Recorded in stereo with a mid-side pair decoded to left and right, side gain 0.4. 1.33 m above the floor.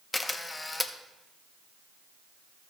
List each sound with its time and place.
0.1 s a camera shutter: 20° left, 0.9 m